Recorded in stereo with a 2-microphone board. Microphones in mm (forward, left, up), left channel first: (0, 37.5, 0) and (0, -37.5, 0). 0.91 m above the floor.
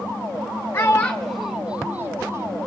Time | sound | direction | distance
0.7 | a child speaking | 30° left (ahead or behind) | 0.6 m